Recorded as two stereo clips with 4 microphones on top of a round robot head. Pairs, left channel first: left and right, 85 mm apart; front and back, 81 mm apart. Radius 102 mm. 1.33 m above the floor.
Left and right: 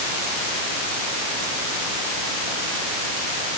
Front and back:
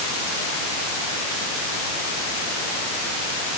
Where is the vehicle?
I don't hear a vehicle.